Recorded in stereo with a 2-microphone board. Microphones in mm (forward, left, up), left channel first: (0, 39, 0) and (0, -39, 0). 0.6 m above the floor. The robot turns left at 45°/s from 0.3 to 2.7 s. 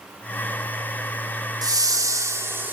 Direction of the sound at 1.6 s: 100° right.